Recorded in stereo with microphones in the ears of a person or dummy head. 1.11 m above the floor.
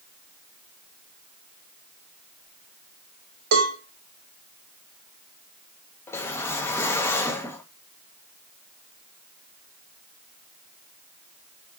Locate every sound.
3.5 s a cowbell: 75° right (ahead or behind), 2.5 m
6.1 s a whoosh: 10° left (ahead or behind), 0.8 m